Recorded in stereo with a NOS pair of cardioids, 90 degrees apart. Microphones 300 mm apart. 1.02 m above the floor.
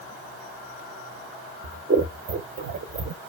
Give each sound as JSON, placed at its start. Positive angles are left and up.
{"t": 1.6, "sound": "scissors", "azimuth_deg": -35, "distance_m": 0.6}